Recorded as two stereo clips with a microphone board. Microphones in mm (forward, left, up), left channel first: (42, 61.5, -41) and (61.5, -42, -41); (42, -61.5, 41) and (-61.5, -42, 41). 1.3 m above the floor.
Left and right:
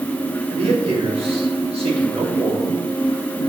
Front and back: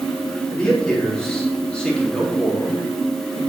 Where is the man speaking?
95° right, 3.5 m.